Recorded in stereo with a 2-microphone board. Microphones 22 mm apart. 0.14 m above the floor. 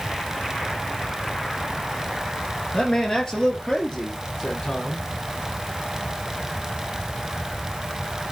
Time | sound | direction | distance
2.7 | a man speaking | 40° left (ahead or behind) | 2.5 m